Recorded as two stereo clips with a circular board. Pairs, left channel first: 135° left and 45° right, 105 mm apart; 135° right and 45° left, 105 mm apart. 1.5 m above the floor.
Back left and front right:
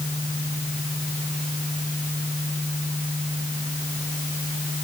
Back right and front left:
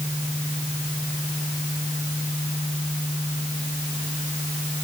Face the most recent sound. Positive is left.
No sound to turn to.